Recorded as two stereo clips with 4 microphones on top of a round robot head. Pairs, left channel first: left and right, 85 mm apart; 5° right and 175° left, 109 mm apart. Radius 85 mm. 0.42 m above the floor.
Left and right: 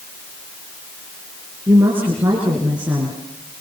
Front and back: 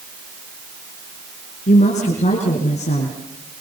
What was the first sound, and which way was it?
A woman speaking, 15° right.